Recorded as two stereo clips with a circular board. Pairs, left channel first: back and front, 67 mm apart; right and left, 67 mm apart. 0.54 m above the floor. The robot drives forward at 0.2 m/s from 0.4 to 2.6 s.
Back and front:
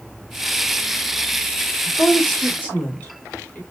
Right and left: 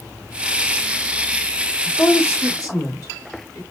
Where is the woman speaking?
110° right, 1.6 m; by 3.6 s 115° right, 1.6 m.